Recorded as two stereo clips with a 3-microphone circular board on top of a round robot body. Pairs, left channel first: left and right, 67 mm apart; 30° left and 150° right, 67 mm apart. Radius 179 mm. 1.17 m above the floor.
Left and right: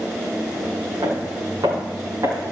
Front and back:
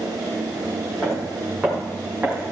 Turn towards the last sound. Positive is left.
turn(degrees=-80)